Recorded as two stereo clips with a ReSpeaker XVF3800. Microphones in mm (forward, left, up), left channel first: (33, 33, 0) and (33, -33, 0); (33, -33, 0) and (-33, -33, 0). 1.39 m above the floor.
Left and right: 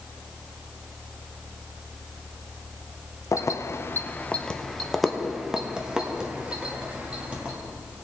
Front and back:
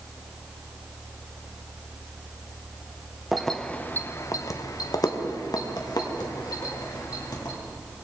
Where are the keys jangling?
90° left, 0.6 m; by 7.5 s 20° right, 2 m.